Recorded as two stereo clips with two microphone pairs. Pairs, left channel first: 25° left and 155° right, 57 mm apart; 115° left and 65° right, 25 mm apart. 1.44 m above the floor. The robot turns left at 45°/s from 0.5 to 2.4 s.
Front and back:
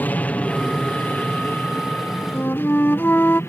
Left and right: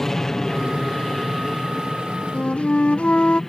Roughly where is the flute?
Left.